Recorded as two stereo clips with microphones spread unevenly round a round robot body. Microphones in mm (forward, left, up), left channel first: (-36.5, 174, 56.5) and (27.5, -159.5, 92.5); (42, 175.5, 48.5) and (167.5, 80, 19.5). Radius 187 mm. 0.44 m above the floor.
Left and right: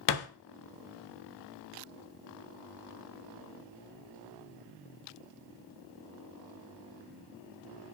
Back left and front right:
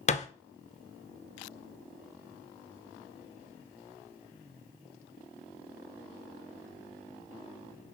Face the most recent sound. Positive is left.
turn(degrees=90)